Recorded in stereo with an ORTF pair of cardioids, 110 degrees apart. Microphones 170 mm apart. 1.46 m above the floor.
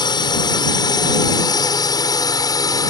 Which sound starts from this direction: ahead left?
A drone, at 0.0 s.